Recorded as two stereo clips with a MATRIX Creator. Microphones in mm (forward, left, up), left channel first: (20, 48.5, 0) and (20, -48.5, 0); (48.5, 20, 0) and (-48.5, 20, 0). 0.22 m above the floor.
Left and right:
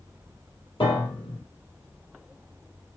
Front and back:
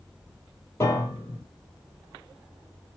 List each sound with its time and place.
0.8 s a piano: 60° left, 1.2 m